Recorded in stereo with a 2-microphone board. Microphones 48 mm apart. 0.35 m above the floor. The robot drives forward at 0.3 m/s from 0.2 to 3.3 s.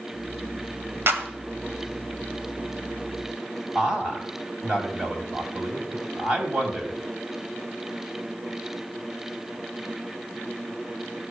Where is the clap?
55° right (ahead or behind), 1.6 m; by 1.3 s 50° right (ahead or behind), 1.6 m.